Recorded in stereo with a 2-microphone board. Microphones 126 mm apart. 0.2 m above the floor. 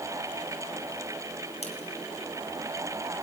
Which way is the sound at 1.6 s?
55° left (ahead or behind).